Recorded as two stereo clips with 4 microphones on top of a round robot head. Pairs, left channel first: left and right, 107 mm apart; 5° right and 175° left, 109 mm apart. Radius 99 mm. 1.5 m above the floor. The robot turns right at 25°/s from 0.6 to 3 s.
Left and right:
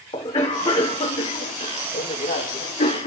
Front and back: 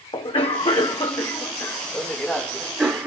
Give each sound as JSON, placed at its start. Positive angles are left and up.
{"t": 0.1, "sound": "a cough", "azimuth_deg": 40, "distance_m": 1.2}